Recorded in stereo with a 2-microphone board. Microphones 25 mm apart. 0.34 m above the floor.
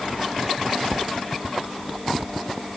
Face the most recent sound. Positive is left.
No sound to turn to.